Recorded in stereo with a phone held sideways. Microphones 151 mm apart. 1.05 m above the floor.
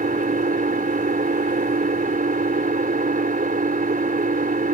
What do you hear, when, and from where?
0.0 s an engine running: 70° right (ahead or behind)